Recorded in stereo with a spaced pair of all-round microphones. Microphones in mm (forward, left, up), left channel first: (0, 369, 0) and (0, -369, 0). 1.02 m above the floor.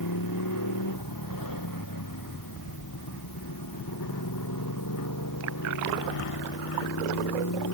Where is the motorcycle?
25° left (ahead or behind).